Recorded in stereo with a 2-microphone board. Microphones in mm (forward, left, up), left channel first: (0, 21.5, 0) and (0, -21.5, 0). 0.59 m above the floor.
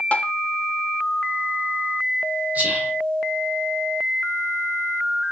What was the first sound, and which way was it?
Tapping, 35° left (ahead or behind).